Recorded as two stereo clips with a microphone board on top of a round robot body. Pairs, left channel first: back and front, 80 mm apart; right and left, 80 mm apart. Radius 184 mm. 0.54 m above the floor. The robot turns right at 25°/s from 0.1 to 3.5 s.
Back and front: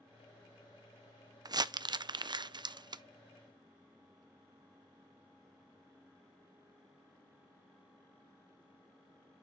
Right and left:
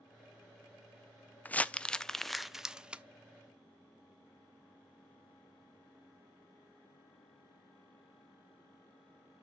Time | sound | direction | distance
1.4 | crumpling | 25° right | 0.5 m